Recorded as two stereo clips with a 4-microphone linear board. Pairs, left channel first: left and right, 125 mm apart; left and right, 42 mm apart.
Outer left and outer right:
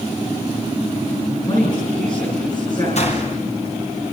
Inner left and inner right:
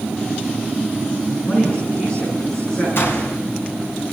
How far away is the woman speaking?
About 9.5 m.